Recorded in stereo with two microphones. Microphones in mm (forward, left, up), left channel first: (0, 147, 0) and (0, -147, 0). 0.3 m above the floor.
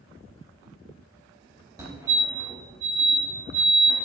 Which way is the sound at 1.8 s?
10° right (ahead or behind).